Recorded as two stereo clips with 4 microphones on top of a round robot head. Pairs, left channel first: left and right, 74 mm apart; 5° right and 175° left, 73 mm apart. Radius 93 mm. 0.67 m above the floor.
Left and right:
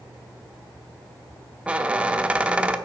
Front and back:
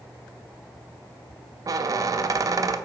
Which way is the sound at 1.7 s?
160° right.